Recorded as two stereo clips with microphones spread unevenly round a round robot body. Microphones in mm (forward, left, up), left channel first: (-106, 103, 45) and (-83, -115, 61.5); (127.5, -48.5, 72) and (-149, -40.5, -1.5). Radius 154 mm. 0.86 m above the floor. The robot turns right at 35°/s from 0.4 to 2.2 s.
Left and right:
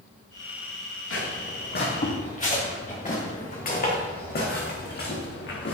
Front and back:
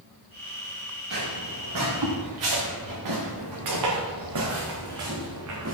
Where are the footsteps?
120° left, 6.5 m; by 5.7 s 135° left, 4.5 m.